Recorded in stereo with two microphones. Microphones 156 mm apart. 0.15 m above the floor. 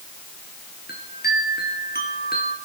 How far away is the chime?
About 3 m.